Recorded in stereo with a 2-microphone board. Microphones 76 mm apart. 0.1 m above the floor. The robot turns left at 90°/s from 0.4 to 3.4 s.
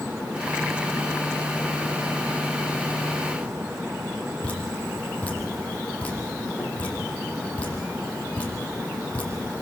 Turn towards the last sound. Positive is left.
turn(degrees=20)  # may be behind; listen again after turning